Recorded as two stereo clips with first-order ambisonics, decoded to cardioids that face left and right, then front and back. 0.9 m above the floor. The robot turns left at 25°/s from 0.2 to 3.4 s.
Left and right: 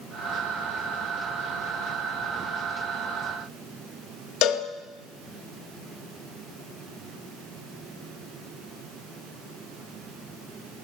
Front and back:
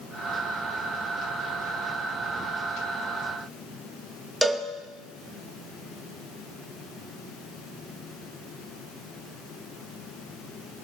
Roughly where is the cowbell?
Left.